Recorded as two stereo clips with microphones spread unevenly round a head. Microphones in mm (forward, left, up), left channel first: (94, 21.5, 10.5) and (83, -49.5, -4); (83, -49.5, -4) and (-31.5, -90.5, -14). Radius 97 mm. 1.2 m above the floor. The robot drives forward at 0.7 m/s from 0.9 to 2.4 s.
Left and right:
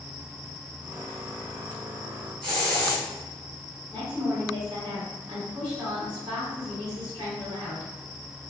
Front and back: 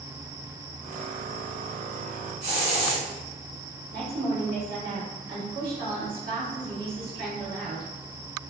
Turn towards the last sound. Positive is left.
turn(degrees=-175)